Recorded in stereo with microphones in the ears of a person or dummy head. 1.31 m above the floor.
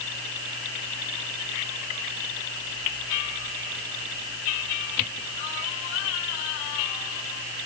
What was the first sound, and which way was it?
Only background noise.